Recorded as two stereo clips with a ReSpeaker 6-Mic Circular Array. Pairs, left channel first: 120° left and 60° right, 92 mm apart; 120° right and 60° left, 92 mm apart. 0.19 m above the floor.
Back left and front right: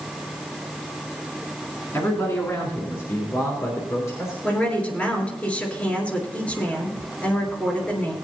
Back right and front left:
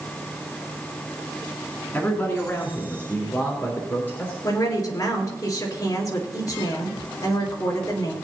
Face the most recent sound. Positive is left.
turn(degrees=-165)